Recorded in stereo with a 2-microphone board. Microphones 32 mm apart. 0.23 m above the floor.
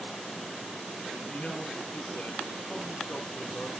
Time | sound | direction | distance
1.3 | a man speaking | 40° left (ahead or behind) | 3 m